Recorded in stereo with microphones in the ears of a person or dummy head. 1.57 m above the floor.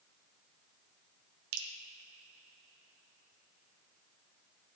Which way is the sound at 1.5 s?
75° right (ahead or behind).